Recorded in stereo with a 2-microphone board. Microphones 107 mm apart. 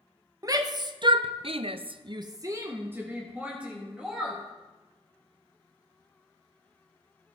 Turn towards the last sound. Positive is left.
turn(degrees=-5)  # may be behind; listen again after turning